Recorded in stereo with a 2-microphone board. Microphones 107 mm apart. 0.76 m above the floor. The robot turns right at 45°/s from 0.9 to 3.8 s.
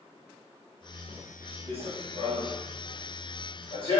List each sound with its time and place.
1.7 s running footsteps: 60° right (ahead or behind), 1.7 m; by 4.0 s 55° left (ahead or behind), 2 m